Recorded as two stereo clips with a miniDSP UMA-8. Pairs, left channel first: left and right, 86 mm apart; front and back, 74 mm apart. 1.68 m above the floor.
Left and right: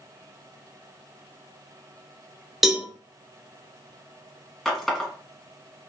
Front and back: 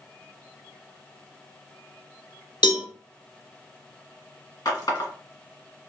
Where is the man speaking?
I don't hear a man speaking.